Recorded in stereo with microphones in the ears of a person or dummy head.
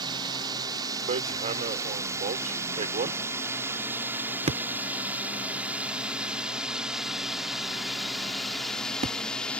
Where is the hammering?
40° right (ahead or behind).